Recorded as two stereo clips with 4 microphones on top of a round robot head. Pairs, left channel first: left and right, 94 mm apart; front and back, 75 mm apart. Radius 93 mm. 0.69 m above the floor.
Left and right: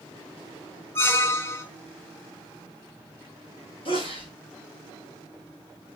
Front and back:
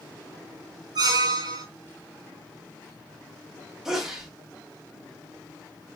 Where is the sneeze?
95° left, 2 m.